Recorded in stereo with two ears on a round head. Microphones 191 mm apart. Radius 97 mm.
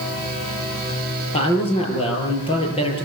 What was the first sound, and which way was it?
A man speaking, 30° left (ahead or behind).